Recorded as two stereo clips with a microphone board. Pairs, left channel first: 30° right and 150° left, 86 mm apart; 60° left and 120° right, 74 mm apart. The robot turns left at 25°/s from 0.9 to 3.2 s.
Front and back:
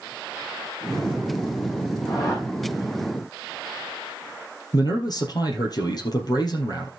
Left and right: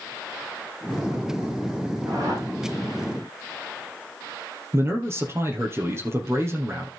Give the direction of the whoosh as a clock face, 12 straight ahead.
2 o'clock.